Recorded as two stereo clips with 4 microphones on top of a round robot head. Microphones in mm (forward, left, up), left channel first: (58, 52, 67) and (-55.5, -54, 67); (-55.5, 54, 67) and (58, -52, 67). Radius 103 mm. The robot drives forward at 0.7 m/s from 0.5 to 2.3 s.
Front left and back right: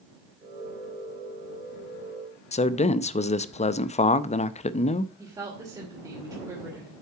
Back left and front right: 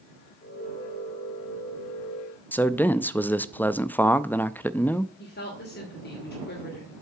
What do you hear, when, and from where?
2.5 s a man speaking: 60° left, 0.5 m
5.2 s a woman speaking: 155° left, 2.5 m